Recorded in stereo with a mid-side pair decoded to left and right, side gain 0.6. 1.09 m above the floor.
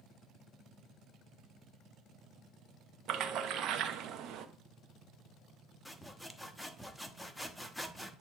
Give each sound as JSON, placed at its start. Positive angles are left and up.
{"t": 3.1, "sound": "a splash", "azimuth_deg": -60, "distance_m": 1.0}
{"t": 5.8, "sound": "sawing", "azimuth_deg": 5, "distance_m": 1.0}